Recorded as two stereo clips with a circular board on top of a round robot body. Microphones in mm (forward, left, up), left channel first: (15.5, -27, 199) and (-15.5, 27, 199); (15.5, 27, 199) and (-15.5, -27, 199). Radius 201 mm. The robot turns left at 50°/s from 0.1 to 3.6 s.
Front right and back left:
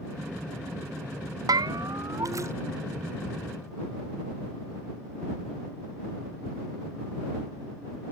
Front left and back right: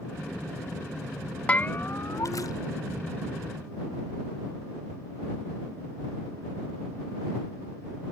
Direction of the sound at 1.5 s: 130° left.